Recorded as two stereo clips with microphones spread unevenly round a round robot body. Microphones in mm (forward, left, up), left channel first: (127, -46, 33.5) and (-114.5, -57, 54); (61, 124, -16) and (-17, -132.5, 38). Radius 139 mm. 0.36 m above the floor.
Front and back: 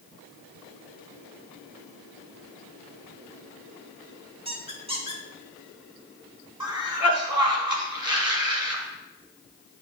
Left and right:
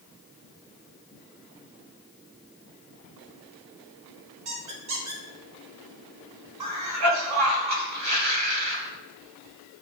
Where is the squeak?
110° right, 1.2 m.